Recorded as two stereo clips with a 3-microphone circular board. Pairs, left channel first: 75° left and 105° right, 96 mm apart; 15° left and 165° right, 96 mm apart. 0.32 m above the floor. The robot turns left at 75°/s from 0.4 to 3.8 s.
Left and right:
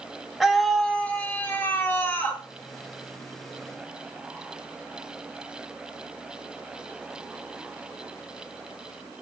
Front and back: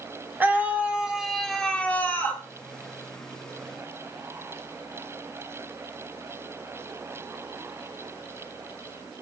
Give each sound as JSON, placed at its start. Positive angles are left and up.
{"t": 0.4, "sound": "a scream", "azimuth_deg": 180, "distance_m": 0.9}